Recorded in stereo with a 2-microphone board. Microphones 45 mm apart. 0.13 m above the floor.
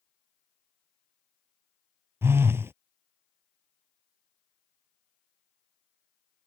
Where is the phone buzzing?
65° right (ahead or behind).